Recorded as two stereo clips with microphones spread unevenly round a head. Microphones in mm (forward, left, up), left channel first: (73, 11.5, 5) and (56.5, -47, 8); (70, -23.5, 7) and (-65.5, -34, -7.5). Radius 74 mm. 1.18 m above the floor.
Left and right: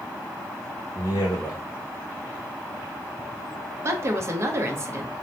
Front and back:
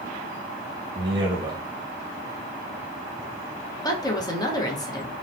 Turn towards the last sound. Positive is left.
turn(degrees=-60)